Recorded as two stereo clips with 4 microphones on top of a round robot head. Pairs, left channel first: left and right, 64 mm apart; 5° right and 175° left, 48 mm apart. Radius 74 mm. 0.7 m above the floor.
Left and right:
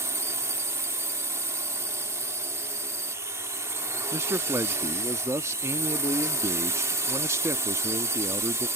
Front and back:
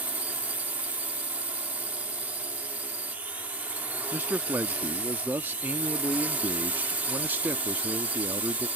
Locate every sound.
0.0 s a drone: 125° right
4.1 s a man speaking: 130° right